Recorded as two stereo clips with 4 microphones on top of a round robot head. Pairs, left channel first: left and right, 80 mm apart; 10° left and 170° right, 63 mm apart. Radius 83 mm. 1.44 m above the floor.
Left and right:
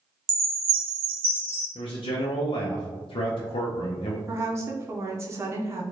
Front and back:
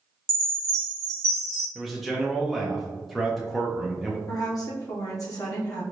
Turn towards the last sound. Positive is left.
turn(degrees=-35)